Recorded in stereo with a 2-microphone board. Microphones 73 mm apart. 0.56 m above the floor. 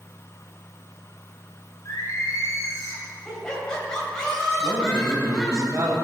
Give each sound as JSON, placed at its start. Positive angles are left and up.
{"t": 1.9, "sound": "singing", "side_deg": 45, "distance_m": 3.0}
{"t": 3.2, "sound": "laughter", "side_deg": 10, "distance_m": 3.0}
{"t": 4.6, "sound": "a man speaking", "side_deg": -40, "distance_m": 3.0}